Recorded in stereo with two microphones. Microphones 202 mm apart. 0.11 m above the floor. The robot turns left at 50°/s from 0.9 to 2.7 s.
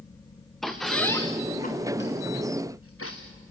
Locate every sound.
0.6 s a squeak: centre (ahead or behind), 2.5 m; by 3.2 s 85° left, 2.5 m